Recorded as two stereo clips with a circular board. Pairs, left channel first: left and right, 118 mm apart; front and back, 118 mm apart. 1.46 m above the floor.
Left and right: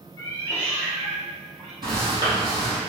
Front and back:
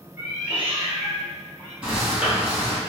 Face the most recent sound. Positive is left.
turn(degrees=-105)